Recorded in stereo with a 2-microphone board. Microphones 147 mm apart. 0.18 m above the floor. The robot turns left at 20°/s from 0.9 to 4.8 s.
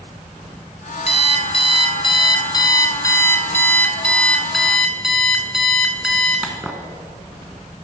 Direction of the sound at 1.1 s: 70° left.